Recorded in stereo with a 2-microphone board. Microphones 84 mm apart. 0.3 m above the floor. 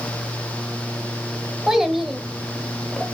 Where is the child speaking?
5° right (ahead or behind), 0.9 m; by 3.0 s 10° left (ahead or behind), 0.8 m.